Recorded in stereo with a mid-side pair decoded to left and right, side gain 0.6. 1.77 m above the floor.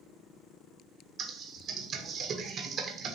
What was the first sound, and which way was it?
Typing on a keyboard, 50° right.